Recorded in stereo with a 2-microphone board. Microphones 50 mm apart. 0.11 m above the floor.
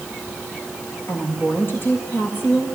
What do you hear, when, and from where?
1.1 s a woman speaking: 40° left (ahead or behind), 7.5 m